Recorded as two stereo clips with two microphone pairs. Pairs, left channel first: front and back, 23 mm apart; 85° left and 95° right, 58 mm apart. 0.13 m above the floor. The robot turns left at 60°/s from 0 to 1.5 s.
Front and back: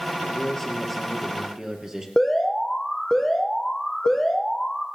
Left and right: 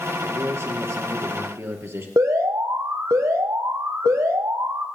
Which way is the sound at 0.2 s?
40° right.